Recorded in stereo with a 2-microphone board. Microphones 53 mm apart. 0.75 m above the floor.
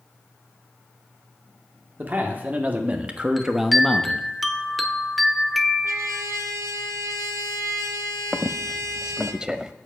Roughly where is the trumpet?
Right.